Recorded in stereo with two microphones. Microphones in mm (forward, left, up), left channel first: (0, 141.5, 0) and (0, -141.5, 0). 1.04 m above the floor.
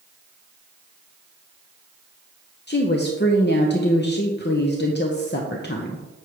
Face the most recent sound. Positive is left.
turn(degrees=40)  # may be behind; listen again after turning